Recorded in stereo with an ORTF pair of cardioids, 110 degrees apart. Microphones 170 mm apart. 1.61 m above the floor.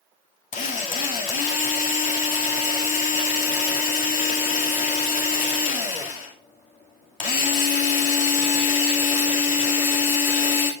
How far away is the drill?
About 2.5 m.